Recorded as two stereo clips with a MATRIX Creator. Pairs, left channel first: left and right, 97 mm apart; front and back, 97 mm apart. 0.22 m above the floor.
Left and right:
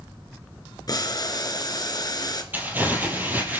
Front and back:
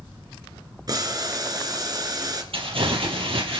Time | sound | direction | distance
0.9 | boiling | 135° left | 1.7 m
2.5 | crumpling | 160° right | 3.5 m